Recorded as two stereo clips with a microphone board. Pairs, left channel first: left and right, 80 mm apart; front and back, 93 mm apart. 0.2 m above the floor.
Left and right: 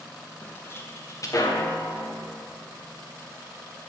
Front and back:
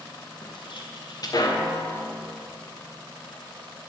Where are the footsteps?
20° left, 2.5 m; by 2.1 s 70° left, 2 m.